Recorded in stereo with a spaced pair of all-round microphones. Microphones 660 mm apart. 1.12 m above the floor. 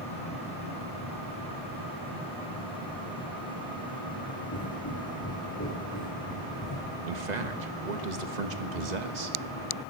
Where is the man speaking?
80° right, 1.4 m.